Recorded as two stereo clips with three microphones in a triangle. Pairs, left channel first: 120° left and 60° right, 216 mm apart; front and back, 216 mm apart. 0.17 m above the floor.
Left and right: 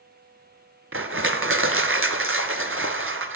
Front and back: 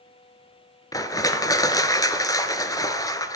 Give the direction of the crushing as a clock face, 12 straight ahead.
3 o'clock.